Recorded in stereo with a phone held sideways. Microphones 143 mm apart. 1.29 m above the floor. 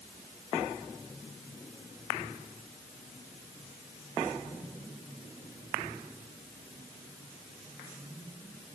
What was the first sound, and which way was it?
Only background noise.